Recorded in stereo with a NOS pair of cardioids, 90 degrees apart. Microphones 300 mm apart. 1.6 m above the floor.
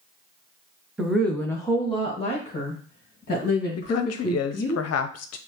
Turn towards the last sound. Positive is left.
turn(degrees=55)